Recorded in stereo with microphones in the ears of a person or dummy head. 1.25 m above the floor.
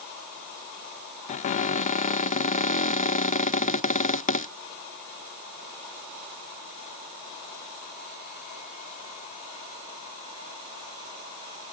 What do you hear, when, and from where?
1.3 s a cupboard door: 35° left (ahead or behind)